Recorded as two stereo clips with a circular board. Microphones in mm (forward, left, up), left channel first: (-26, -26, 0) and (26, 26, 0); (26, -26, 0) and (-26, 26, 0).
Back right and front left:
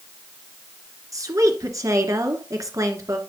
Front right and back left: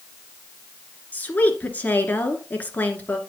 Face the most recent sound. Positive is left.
turn(degrees=15)